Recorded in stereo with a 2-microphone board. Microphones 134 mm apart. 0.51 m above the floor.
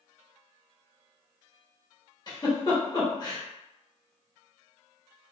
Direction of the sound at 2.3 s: 35° left (ahead or behind).